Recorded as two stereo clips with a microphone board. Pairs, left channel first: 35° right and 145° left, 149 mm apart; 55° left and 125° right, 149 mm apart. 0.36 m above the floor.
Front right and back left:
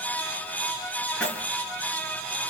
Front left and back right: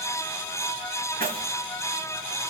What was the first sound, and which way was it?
Keys jangling, 115° right.